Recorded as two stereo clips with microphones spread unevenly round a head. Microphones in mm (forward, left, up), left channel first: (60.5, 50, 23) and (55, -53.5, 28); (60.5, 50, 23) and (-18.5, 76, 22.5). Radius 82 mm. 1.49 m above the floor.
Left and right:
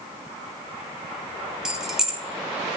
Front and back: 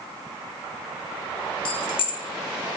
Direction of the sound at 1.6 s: 10° right.